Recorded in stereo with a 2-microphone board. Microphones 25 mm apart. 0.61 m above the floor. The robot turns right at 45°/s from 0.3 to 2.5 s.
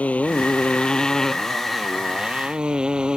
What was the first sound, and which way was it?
A motorcycle, 115° left.